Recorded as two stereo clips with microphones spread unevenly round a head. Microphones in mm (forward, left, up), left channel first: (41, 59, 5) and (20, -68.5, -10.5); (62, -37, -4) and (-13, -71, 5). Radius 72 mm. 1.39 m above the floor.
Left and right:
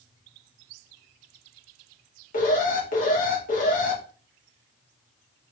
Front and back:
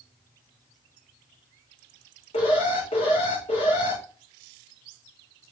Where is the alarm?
60° left, 2.5 m.